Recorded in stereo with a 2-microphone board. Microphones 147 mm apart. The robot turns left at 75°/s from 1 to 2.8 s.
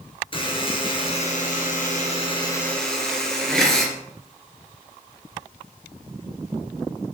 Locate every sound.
0.3 s a buzzer: 140° left, 2.5 m; by 3.9 s 5° left, 2.5 m